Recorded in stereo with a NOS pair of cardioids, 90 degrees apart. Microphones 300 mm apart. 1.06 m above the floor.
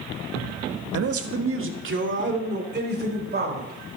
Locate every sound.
0.9 s a man speaking: 55° right, 1.2 m; by 3.7 s 35° right, 4.5 m